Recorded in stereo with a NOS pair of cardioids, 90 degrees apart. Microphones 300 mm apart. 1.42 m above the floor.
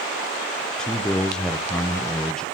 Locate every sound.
0.8 s a man speaking: straight ahead, 0.8 m